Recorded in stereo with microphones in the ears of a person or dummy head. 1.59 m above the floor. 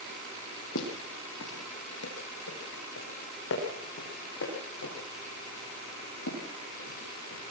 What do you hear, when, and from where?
0.8 s footsteps: 65° left (ahead or behind), 4 m; by 7.4 s 70° left (ahead or behind), 9 m